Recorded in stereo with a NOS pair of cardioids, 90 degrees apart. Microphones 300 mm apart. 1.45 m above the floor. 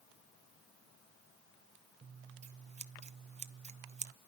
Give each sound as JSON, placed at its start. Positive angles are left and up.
{"t": 2.0, "sound": "scissors", "azimuth_deg": -25, "distance_m": 0.5}